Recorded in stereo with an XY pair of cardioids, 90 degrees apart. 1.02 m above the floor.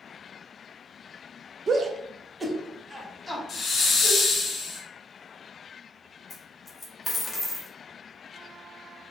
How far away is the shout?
About 0.6 m.